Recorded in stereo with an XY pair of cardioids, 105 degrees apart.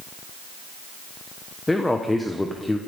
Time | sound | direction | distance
1.7 | a man speaking | 15° left | 1.2 m